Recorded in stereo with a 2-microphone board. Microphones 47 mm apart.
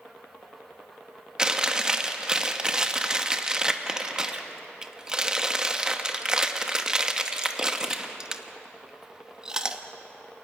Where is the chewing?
15° right (ahead or behind), 1.1 m.